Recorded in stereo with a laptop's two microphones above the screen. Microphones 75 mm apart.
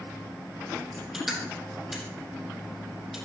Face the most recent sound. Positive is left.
turn(degrees=-5)  # may be behind; listen again after turning